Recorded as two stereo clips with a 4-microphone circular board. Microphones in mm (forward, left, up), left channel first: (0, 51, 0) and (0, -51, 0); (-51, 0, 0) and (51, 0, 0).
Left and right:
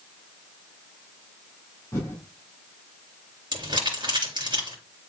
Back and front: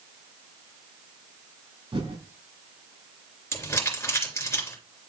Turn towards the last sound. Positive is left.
turn(degrees=-120)